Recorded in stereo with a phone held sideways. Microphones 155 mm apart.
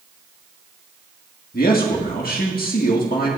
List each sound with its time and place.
1.5 s a man speaking: 65° left (ahead or behind), 1.6 m